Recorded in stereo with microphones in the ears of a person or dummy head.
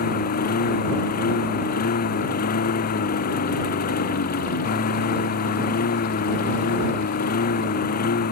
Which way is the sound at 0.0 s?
50° left (ahead or behind).